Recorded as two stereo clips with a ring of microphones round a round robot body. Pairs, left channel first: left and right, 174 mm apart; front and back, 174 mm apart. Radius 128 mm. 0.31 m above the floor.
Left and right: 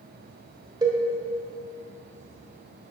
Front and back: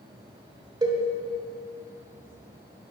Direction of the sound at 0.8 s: 135° right.